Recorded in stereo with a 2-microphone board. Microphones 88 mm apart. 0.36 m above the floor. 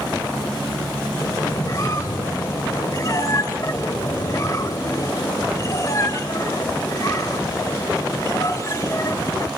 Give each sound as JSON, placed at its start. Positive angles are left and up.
{"t": 1.2, "sound": "a squeak", "side_deg": 40, "distance_m": 1.2}